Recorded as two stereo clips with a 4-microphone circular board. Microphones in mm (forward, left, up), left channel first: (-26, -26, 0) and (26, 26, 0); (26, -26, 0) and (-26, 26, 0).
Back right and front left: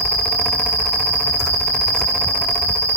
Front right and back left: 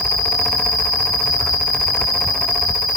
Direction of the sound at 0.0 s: 65° right.